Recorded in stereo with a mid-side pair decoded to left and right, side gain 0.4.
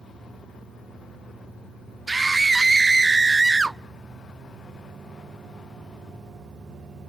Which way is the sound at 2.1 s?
25° right.